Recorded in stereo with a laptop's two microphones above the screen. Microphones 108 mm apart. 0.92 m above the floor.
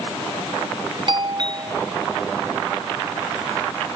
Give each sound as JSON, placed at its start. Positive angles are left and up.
{"t": 1.1, "sound": "a doorbell", "side_deg": -45}